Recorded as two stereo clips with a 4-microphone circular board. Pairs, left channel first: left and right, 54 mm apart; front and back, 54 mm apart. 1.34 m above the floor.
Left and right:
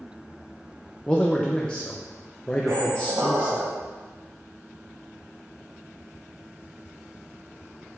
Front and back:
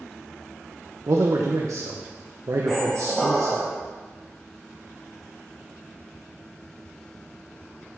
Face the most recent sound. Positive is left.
turn(degrees=-75)